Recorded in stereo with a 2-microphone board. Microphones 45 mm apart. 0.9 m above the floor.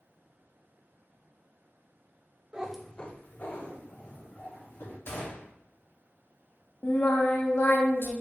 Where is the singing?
60° left (ahead or behind), 1.0 m.